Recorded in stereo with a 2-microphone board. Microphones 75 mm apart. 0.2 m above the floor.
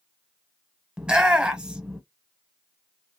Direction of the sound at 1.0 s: 10° right (ahead or behind).